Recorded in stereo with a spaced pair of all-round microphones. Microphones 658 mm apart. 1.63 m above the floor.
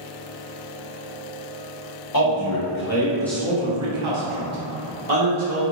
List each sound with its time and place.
2.1 s a man speaking: 35° left (ahead or behind), 1.0 m; by 5.6 s 80° right, 1.1 m